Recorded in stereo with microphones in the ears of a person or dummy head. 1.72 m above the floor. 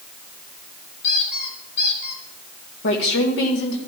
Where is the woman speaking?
70° left (ahead or behind), 1.8 m.